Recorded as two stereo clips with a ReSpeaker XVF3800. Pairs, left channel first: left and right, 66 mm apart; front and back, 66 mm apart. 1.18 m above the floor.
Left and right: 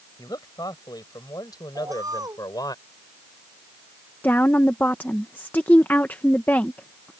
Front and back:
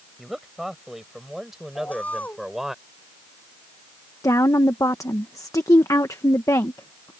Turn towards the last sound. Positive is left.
turn(degrees=30)